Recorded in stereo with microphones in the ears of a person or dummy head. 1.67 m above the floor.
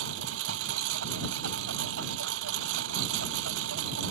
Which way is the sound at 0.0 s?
70° right (ahead or behind).